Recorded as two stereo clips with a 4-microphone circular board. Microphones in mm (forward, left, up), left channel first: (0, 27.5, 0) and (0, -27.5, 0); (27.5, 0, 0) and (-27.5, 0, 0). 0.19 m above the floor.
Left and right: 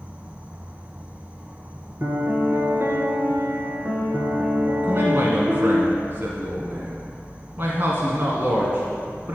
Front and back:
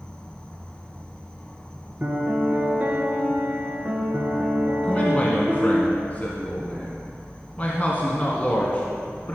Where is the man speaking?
55° right, 1.5 m.